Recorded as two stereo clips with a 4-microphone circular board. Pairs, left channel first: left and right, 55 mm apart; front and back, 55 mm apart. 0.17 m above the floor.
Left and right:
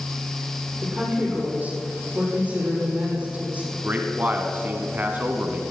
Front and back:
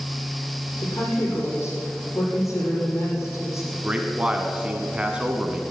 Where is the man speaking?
125° right, 1.2 m.